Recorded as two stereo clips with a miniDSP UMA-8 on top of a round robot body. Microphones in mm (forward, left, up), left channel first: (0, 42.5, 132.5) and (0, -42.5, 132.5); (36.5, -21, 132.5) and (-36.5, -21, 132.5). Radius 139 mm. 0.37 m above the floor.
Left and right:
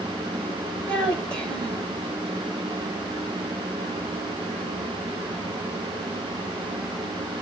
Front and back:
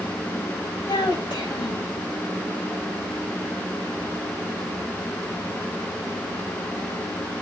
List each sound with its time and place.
0.9 s a child speaking: 10° left, 2 m